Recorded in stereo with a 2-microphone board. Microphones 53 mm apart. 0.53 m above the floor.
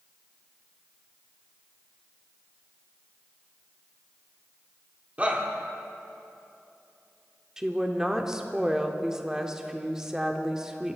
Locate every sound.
5.2 s a shout: 30° right (ahead or behind), 1.2 m
7.6 s a woman speaking: 15° right (ahead or behind), 1.0 m